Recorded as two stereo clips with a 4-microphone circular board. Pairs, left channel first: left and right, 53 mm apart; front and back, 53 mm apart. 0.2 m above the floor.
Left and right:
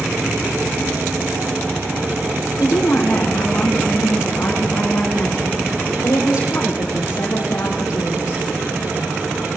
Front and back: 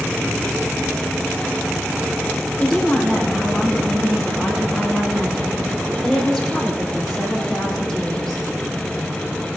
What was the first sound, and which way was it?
A woman speaking, 80° left.